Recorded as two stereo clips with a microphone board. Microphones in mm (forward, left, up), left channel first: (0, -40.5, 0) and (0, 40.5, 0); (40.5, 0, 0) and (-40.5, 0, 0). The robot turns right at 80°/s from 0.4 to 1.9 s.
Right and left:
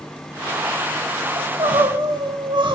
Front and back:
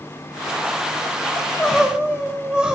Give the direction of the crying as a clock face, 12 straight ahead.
10 o'clock.